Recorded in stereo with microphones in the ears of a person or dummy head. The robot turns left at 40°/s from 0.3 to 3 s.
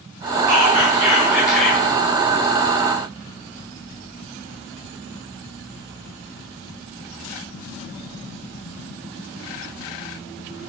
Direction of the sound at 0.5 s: 135° right.